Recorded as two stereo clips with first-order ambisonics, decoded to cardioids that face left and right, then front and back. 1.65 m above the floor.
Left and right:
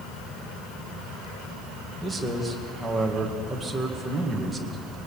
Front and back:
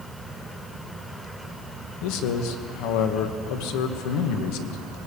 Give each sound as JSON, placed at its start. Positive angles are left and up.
{"t": 2.0, "sound": "a man speaking", "azimuth_deg": -5, "distance_m": 2.0}